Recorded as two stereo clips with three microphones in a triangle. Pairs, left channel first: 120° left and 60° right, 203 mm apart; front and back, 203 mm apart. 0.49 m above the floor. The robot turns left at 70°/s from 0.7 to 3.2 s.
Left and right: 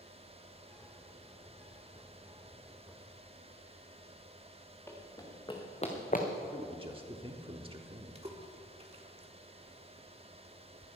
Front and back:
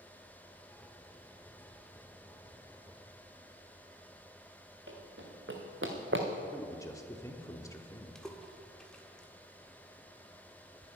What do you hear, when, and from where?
4.9 s running footsteps: 160° right, 3.5 m; by 6.3 s 165° left, 2 m
6.5 s a man speaking: 55° right, 1.1 m
8.2 s a splash: 85° right, 1.5 m